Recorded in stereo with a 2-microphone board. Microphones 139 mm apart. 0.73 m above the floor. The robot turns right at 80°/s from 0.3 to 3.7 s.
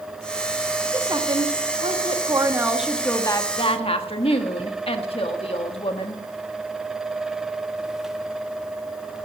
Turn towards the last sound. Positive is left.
turn(degrees=65)